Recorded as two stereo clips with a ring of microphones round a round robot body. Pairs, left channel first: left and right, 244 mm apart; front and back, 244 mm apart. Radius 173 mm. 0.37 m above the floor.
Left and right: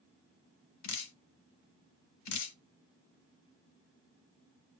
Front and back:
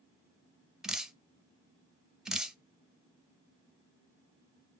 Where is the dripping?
90° left, 0.6 m.